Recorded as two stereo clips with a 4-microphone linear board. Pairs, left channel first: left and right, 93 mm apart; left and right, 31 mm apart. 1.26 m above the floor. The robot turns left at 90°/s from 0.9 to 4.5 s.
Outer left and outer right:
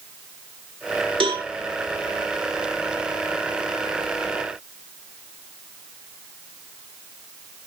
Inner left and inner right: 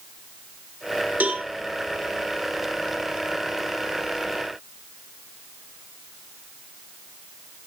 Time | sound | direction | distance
1.2 | a cowbell | 70° right (ahead or behind) | 2.5 m